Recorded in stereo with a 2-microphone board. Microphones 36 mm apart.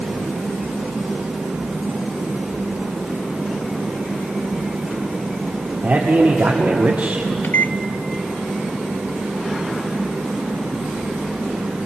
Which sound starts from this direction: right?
A man speaking, at 5.8 s.